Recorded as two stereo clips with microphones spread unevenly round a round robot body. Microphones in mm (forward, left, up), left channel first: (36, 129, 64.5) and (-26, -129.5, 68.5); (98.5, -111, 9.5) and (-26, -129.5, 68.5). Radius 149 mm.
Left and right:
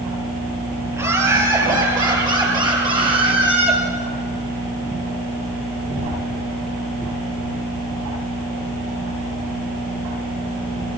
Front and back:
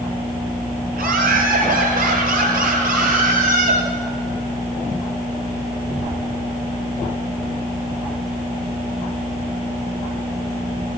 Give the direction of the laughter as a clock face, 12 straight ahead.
6 o'clock.